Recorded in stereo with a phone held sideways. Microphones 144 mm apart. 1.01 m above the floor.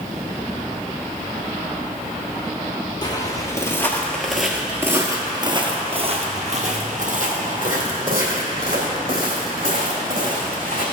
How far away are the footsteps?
About 1.6 m.